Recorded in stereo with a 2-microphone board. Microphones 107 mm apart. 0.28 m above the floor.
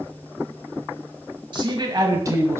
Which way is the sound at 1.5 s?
45° right (ahead or behind).